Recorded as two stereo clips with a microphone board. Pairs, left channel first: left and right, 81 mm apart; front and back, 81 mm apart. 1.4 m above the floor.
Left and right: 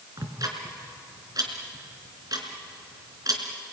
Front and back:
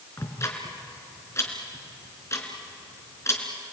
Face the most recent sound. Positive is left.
turn(degrees=-50)